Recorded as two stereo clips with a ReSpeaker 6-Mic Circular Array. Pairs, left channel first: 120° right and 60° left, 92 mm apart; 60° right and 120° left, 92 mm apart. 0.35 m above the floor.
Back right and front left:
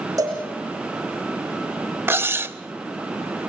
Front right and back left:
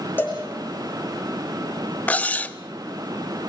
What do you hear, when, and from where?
0.2 s a cowbell: 10° left, 8 m
2.1 s cutlery clinking: 5° left, 0.6 m